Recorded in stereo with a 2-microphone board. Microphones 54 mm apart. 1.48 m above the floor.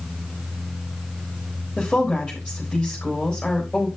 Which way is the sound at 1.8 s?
Centre (ahead or behind).